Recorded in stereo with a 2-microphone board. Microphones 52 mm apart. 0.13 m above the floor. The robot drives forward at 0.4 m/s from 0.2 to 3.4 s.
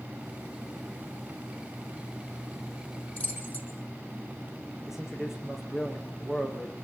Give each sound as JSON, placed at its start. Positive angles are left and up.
{"t": 3.2, "sound": "keys jangling", "side_deg": 30, "distance_m": 4.0}
{"t": 4.9, "sound": "a man speaking", "side_deg": -10, "distance_m": 7.0}